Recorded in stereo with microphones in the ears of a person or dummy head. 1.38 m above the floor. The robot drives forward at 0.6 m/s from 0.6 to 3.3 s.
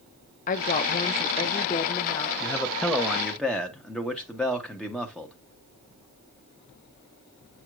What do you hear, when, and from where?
0.5 s a woman speaking: 35° left (ahead or behind), 0.6 m; by 2.3 s 15° left (ahead or behind), 1.4 m
2.4 s a man speaking: 5° left (ahead or behind), 0.6 m